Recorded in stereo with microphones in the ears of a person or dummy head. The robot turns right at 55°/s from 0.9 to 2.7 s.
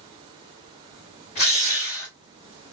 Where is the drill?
120° left, 1.6 m; by 2.1 s 160° left, 1.6 m.